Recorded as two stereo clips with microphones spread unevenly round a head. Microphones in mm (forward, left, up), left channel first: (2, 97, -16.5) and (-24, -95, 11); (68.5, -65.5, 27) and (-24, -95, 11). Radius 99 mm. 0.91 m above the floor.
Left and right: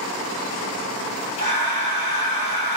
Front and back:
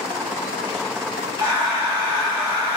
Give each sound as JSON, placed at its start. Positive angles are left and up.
{"t": 1.4, "sound": "breathing", "azimuth_deg": 125, "distance_m": 1.6}